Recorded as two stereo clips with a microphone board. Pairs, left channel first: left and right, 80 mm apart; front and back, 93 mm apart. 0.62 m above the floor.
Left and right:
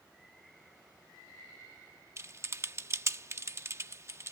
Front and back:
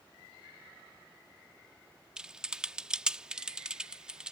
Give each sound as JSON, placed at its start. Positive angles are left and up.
{"t": 2.2, "sound": "typing on a keyboard", "azimuth_deg": -105}